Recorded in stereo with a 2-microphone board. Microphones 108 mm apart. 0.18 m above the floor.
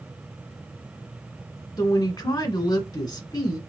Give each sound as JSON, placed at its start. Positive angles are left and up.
{"t": 1.8, "sound": "a woman speaking", "side_deg": 40, "distance_m": 1.4}